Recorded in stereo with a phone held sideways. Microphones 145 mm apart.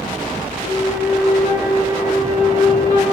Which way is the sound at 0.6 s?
50° left (ahead or behind).